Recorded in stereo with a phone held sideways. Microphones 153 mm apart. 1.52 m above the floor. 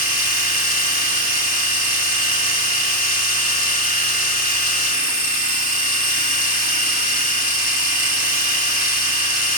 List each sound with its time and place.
0.0 s a machine running: 60° left (ahead or behind), 4 m